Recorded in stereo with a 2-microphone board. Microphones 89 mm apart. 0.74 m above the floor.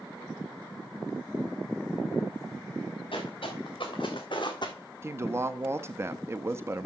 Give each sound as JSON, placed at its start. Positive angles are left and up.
{"t": 3.1, "sound": "footsteps", "side_deg": 70, "distance_m": 4.0}
{"t": 5.0, "sound": "a woman speaking", "side_deg": -30, "distance_m": 0.6}